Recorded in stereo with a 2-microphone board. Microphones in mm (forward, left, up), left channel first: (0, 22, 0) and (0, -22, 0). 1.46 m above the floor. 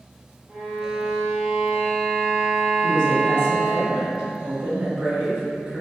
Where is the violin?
15° right (ahead or behind), 1.3 m.